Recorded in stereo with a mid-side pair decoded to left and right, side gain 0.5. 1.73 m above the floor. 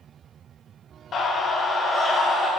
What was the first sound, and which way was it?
A scream, 45° left.